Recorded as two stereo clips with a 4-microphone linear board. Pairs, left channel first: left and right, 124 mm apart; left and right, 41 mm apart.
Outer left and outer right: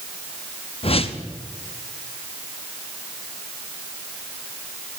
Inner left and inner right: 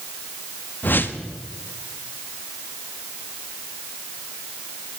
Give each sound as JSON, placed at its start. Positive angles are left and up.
{"t": 0.8, "sound": "a whoosh", "side_deg": 50, "distance_m": 0.8}